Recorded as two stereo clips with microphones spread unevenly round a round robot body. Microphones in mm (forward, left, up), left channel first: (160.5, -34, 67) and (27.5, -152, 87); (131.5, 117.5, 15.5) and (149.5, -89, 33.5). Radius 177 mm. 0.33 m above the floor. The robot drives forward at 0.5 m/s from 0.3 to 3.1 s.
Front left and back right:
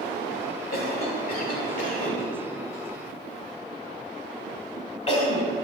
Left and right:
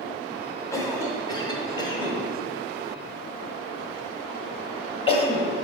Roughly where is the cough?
Ahead left.